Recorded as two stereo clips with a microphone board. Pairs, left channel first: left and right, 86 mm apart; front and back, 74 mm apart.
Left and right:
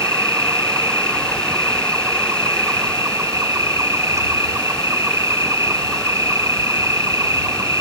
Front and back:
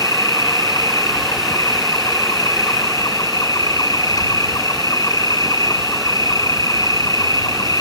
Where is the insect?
35° right.